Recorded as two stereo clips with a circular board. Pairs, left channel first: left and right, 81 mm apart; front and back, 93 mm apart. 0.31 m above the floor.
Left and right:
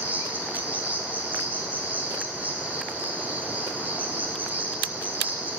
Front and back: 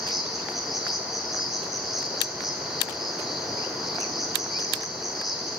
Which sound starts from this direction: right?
An insect, at 0.0 s.